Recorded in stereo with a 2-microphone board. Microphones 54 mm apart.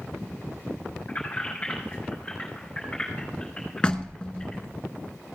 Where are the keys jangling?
30° left (ahead or behind), 3.5 m; by 4.6 s 15° left (ahead or behind), 6 m.